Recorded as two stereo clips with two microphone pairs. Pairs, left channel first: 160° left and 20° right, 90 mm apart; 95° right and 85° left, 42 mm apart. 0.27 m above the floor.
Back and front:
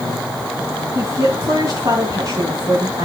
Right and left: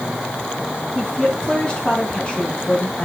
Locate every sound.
0.9 s a woman speaking: 40° right, 2.5 m